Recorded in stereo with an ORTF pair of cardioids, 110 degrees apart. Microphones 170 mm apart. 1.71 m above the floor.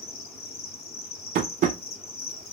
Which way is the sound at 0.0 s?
35° left.